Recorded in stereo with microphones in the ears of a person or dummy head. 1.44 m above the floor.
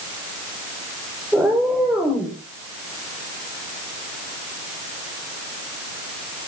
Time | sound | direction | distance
1.3 | a cat meowing | 10° right (ahead or behind) | 6.5 m